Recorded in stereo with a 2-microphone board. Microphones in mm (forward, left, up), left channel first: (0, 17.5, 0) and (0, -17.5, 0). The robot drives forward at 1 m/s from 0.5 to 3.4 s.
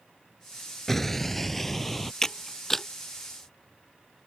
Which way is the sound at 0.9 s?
10° left (ahead or behind).